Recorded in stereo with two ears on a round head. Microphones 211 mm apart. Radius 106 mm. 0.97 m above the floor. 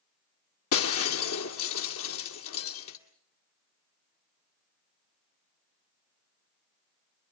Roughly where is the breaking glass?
Left.